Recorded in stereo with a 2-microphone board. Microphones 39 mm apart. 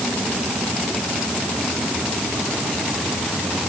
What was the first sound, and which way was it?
Only background noise.